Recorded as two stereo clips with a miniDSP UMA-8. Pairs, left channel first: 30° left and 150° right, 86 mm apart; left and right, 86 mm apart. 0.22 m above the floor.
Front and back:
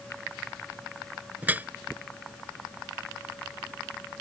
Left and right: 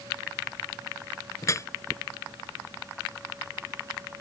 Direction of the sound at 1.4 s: 140° left.